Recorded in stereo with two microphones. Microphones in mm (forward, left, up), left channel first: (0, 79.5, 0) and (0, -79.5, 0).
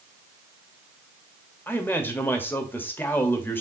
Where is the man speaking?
15° left (ahead or behind), 1.3 m.